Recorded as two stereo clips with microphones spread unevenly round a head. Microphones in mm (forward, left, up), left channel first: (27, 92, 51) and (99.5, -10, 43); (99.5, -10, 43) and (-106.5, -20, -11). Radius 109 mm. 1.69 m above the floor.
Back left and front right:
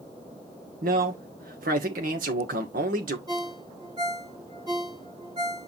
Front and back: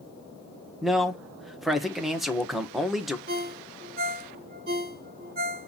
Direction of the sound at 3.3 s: 125° right.